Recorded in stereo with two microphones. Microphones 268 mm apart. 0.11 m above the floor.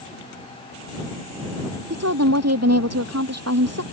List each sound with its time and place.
1.9 s a woman speaking: 70° right (ahead or behind)